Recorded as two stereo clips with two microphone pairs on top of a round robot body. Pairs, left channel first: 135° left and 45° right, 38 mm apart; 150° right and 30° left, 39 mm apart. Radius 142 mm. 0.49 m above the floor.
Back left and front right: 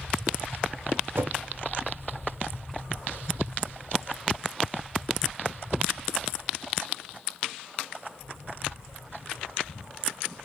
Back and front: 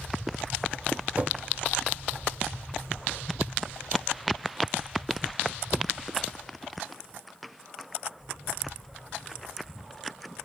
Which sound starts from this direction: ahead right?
A whoosh, at 1.1 s.